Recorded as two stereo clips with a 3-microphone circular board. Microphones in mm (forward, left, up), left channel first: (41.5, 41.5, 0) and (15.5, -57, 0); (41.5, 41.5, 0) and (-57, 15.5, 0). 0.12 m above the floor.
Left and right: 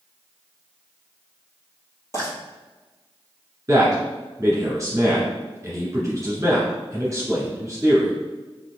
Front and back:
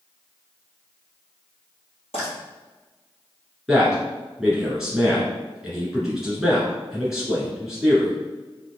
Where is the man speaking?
80° right, 1.6 m.